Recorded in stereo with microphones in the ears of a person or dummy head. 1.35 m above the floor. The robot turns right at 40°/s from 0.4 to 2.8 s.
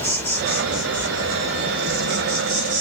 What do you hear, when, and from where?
0.0 s an insect: 170° left, 1.1 m; by 2.8 s 95° right, 1.1 m